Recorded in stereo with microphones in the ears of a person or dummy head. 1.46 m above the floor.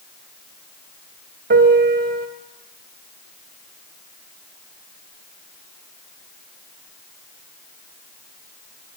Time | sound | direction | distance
1.5 | a piano | 50° right (ahead or behind) | 1.7 m